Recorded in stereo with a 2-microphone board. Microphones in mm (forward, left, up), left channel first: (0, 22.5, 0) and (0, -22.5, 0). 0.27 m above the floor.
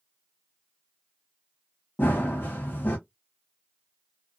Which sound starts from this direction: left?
Running footsteps, at 2.0 s.